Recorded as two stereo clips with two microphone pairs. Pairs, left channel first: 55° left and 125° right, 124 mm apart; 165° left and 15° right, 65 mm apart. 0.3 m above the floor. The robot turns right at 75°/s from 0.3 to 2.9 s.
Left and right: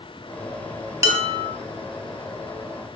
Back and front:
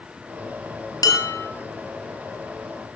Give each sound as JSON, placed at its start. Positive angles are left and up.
{"t": 1.0, "sound": "dishes clattering", "azimuth_deg": 170, "distance_m": 4.0}